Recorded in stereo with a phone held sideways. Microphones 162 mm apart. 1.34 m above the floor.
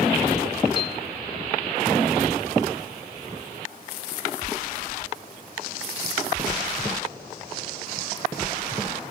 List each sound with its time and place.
0.8 s a piano: 30° left (ahead or behind)